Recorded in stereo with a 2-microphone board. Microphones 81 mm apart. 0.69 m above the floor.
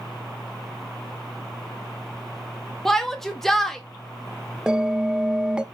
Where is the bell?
10° right (ahead or behind), 0.7 m.